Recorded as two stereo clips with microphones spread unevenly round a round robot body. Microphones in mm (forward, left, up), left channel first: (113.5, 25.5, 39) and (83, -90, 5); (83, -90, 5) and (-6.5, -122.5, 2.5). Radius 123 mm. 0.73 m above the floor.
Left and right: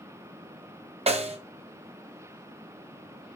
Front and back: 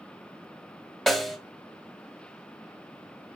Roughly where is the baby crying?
I don't hear a baby crying.